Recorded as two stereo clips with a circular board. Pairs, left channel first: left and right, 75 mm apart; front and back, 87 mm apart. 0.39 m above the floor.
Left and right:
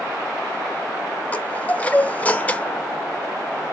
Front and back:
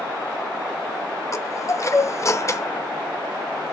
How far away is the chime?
About 0.8 m.